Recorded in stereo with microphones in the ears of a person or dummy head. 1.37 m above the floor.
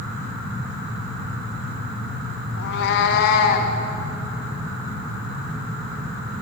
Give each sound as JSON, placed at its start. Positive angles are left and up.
{"t": 2.6, "sound": "a cat meowing", "side_deg": 60, "distance_m": 1.0}